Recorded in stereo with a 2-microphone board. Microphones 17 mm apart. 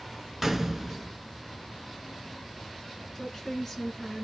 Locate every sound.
0.4 s a gunshot: 10° right (ahead or behind), 0.7 m
3.1 s a woman speaking: 15° left (ahead or behind), 1.3 m